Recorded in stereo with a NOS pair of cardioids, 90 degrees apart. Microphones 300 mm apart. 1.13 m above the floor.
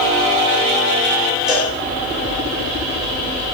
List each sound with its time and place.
1.5 s a cowbell: straight ahead, 3 m